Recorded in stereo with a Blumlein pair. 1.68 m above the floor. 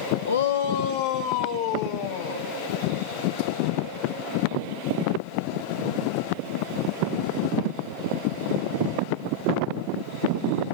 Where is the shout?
70° left, 0.6 m; by 2.5 s 55° left, 2 m.